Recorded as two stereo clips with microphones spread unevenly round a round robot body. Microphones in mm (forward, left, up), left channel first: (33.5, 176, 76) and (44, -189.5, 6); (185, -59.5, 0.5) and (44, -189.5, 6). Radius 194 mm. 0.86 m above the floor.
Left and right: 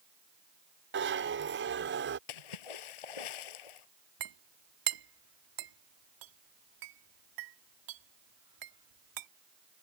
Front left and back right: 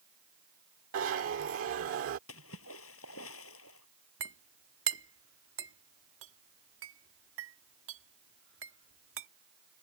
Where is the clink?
125° right.